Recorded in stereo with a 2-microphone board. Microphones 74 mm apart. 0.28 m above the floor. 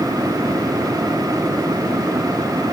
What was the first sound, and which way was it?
Only background noise.